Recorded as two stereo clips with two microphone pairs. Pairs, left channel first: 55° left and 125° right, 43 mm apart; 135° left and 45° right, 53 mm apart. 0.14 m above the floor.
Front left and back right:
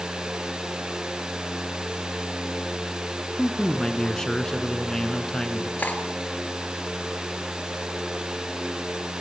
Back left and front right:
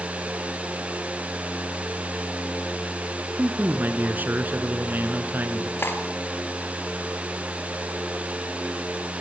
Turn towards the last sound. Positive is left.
turn(degrees=100)